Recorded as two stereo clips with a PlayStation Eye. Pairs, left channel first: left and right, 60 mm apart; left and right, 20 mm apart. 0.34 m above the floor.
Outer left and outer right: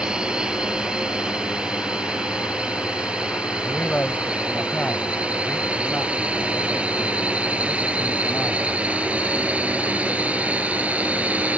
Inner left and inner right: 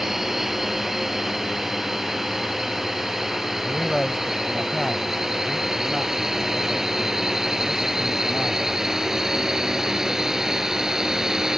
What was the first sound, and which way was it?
A drone, 15° right (ahead or behind).